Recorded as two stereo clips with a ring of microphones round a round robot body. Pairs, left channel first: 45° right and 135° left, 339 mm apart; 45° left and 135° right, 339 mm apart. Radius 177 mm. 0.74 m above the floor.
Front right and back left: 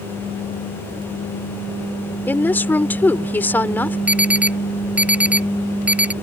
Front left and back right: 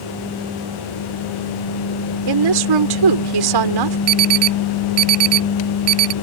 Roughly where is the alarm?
Behind right.